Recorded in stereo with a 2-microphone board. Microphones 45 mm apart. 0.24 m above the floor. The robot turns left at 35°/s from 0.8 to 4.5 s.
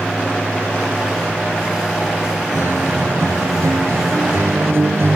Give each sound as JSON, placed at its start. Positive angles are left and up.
{"t": 2.5, "sound": "a guitar", "azimuth_deg": -50, "distance_m": 1.4}